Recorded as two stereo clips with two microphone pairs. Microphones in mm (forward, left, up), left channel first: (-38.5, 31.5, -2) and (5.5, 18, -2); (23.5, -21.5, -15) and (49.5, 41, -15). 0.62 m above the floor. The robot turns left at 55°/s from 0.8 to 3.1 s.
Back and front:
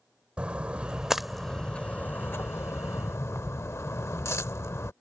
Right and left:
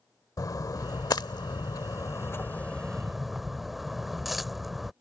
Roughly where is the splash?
Right.